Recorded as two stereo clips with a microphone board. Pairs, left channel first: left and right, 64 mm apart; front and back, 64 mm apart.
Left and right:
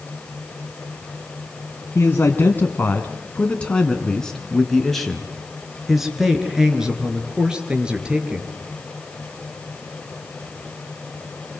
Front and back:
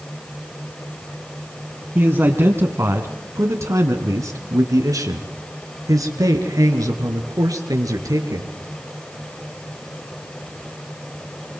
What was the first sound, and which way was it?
A man speaking, 135° left.